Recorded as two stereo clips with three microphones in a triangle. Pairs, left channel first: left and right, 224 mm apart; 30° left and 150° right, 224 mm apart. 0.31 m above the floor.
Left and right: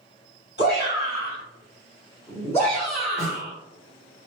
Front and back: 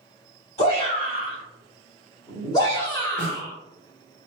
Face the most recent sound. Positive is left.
turn(degrees=20)